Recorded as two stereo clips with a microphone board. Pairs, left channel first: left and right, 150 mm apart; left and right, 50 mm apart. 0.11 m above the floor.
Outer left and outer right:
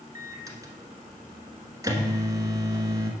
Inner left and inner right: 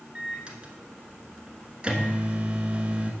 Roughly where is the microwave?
Right.